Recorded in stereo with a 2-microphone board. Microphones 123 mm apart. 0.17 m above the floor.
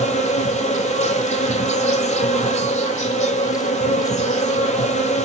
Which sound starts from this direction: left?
An insect, at 0.0 s.